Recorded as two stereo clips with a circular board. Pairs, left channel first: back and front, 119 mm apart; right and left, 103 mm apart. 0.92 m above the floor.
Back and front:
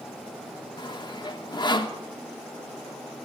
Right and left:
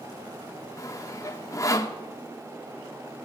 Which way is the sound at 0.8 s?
140° right.